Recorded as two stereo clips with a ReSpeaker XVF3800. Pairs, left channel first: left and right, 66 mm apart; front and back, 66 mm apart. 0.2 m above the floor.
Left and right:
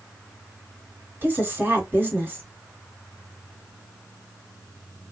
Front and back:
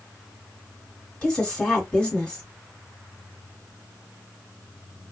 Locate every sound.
1.2 s a woman speaking: 65° right, 1.9 m